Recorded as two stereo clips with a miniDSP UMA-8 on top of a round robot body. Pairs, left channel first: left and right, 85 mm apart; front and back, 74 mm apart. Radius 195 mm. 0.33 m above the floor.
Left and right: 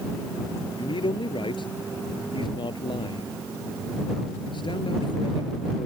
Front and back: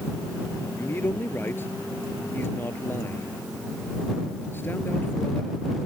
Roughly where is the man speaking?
Ahead left.